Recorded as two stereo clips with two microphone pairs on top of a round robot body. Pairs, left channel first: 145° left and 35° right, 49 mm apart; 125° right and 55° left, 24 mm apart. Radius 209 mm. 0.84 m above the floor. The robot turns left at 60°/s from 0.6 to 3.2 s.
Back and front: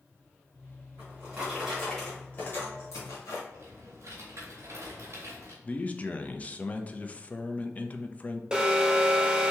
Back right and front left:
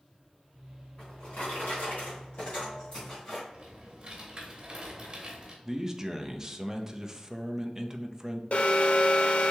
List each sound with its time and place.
1.0 s a drawer: 70° right, 1.1 m; by 3.4 s 160° left, 1.1 m
3.5 s typing on a keyboard: straight ahead, 0.9 m
5.6 s a man speaking: 110° left, 0.7 m
8.5 s an alarm: 110° right, 0.9 m